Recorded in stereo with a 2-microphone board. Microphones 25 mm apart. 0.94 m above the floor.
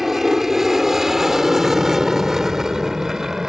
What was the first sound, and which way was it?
An aircraft, 10° right (ahead or behind).